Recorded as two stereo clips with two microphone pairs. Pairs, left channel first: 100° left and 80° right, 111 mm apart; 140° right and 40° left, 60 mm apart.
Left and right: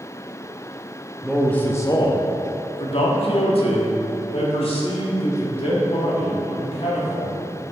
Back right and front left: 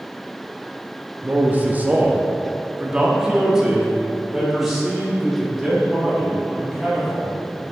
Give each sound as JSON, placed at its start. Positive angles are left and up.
{"t": 1.2, "sound": "a man speaking", "azimuth_deg": 15, "distance_m": 0.8}